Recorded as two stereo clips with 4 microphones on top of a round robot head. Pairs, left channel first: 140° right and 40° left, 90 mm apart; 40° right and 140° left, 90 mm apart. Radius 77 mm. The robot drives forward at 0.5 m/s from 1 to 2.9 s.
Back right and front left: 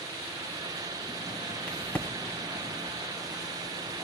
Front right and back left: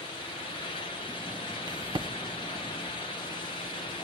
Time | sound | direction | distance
1.7 | a crack | 150° left | 1.3 m